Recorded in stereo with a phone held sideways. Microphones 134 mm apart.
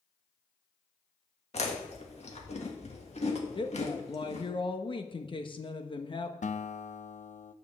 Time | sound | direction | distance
1.5 | chewing | 50° left (ahead or behind) | 1.7 m
3.5 | a woman speaking | 35° left (ahead or behind) | 1.1 m
6.4 | a guitar | 60° left (ahead or behind) | 0.5 m